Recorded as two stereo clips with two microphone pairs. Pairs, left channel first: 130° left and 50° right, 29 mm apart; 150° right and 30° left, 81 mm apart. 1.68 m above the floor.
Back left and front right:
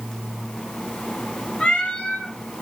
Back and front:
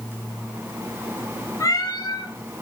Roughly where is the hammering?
I don't hear hammering.